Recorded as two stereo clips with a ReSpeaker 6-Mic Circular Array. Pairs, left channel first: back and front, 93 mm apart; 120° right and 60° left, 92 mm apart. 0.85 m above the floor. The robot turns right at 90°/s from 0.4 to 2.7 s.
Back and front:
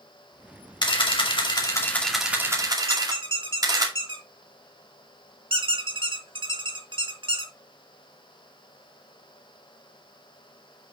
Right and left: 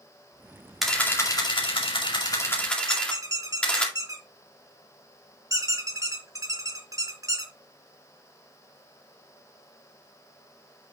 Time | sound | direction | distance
0.8 | a camera shutter | 150° left | 2.5 m
2.9 | a squeak | 10° left | 1.6 m